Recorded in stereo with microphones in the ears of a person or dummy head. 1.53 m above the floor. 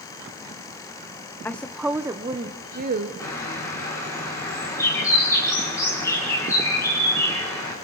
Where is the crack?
No crack in this recording.